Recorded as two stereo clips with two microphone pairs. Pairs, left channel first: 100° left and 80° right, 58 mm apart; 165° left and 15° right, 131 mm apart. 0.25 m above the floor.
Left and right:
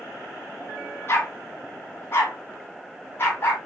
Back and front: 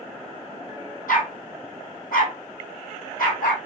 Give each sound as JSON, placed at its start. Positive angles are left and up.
{"t": 1.1, "sound": "a dog barking", "azimuth_deg": 150, "distance_m": 2.0}